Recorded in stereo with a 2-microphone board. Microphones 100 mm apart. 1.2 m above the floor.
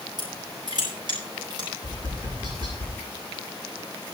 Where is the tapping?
50° right (ahead or behind), 7.5 m.